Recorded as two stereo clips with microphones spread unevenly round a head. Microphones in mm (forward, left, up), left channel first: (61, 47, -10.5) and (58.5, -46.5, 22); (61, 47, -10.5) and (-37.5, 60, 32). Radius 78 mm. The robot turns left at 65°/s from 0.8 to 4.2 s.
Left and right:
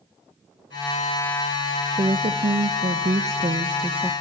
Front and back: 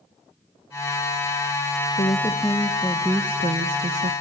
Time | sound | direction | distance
1.9 | a woman speaking | 35° right | 1.0 m